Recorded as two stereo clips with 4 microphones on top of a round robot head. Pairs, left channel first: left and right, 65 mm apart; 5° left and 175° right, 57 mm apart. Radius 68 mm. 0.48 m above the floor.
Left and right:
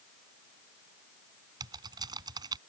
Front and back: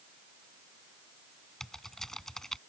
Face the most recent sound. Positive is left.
turn(degrees=-75)